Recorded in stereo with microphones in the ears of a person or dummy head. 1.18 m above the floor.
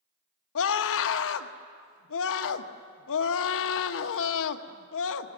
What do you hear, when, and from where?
0.6 s a scream: 75° left (ahead or behind), 1.3 m